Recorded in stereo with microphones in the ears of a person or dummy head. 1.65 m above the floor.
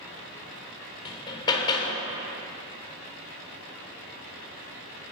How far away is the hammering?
About 1.0 m.